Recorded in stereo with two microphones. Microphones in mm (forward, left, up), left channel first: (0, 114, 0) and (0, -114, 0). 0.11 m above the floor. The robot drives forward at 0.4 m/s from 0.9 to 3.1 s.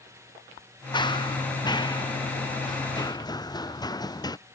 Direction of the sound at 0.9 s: 20° left (ahead or behind).